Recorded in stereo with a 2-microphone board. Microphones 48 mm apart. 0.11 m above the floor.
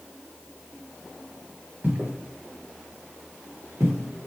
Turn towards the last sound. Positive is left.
turn(degrees=-70)  # may be behind; listen again after turning